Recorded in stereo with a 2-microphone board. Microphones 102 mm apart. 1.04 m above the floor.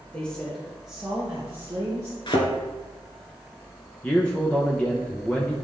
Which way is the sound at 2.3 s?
50° left (ahead or behind).